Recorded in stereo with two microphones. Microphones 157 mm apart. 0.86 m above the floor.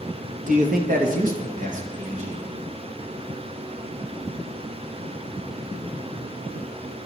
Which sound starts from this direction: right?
A man speaking, at 0.5 s.